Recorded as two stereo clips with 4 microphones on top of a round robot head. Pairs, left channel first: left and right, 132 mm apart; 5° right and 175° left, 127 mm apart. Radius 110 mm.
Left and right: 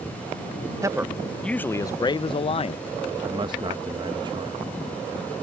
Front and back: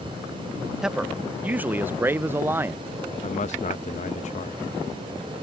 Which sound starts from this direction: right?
A man speaking, at 0.8 s.